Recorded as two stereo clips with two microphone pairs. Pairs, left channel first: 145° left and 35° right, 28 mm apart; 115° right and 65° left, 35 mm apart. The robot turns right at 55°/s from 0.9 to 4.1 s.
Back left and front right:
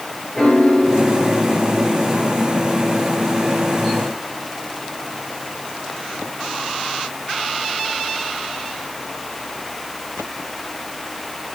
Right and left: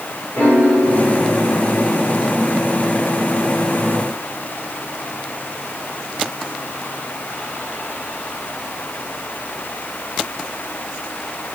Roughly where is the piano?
Behind right.